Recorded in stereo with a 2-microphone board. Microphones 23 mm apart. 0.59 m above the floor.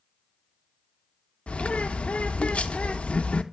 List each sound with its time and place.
1.5 s a bird: 65° left (ahead or behind), 0.5 m